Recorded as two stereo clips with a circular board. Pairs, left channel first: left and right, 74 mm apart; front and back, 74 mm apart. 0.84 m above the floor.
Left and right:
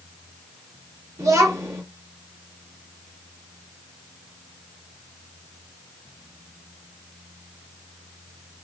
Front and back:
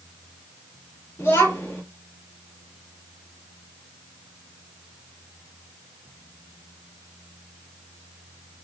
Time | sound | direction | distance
1.2 | a child speaking | 55° right | 1.4 m